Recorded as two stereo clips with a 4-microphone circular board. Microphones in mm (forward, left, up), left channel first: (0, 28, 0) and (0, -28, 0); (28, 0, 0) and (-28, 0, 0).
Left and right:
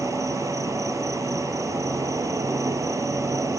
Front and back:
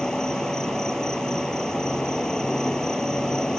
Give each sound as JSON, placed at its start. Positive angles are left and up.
{"t": 0.0, "sound": "an insect", "azimuth_deg": -80}